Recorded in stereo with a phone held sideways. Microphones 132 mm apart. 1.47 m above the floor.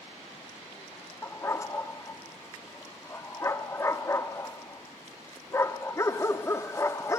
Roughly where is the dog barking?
Left.